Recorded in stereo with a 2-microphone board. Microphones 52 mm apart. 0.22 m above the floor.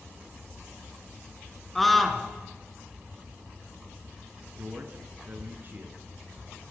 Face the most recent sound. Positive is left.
turn(degrees=-35)  # may be behind; listen again after turning